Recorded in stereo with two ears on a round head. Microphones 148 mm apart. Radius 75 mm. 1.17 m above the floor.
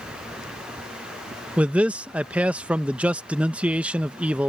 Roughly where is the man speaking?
Centre.